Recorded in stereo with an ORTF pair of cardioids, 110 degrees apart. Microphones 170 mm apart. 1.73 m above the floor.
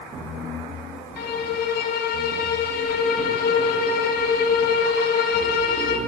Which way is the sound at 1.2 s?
65° left.